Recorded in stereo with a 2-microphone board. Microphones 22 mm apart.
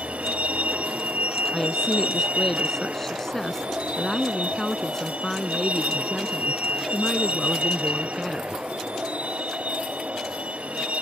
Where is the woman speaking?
15° left (ahead or behind).